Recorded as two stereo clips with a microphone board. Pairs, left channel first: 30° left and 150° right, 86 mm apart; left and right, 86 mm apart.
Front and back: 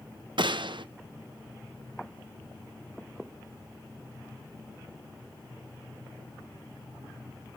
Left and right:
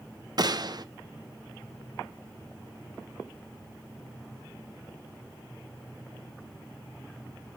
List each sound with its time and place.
0.4 s a gunshot: 125° right, 0.6 m